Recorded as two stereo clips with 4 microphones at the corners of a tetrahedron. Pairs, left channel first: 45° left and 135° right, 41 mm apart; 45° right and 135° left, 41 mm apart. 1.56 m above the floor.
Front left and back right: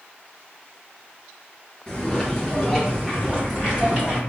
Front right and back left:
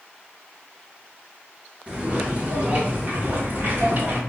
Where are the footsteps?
105° left, 1.7 m; by 4.2 s 145° left, 2.5 m.